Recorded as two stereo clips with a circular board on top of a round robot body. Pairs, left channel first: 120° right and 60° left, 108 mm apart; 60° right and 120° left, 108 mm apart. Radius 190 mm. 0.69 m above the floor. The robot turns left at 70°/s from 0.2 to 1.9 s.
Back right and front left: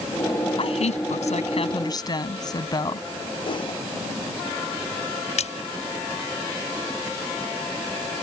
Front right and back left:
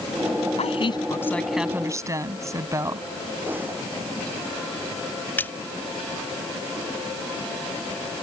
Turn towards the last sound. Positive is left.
turn(degrees=-135)